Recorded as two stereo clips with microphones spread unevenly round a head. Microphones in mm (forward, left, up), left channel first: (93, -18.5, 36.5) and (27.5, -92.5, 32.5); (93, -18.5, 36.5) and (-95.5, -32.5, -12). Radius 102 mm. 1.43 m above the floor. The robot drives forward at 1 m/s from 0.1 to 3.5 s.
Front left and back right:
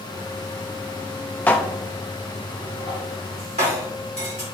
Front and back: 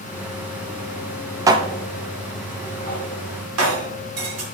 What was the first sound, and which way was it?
Dishes clattering, 95° left.